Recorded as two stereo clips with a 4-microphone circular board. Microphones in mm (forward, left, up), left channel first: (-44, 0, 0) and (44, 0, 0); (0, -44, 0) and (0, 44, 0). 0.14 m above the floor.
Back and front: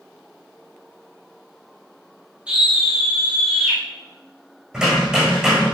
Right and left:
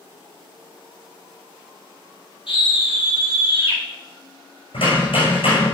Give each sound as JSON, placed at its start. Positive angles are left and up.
{"t": 2.5, "sound": "a scream", "azimuth_deg": -80, "distance_m": 5.5}
{"t": 4.7, "sound": "hammering", "azimuth_deg": -80, "distance_m": 6.5}